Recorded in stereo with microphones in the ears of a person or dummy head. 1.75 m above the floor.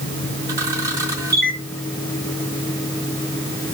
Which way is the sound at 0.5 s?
20° right (ahead or behind).